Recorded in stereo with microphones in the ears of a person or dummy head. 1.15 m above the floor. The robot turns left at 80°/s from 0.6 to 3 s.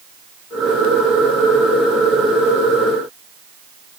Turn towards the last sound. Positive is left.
No sound to turn to.